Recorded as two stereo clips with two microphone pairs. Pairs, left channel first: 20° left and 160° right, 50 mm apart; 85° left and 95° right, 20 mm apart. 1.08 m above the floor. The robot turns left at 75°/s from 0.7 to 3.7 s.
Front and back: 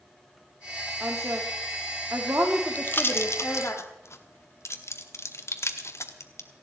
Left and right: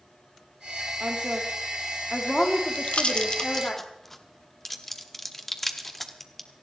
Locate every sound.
1.0 s a woman speaking: 95° right, 2.5 m; by 3.8 s 60° left, 2.5 m
2.8 s a pop: 75° left, 1.3 m; by 6.5 s 5° left, 1.3 m